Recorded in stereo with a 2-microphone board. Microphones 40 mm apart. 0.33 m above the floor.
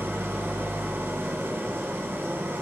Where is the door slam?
No door slam in this recording.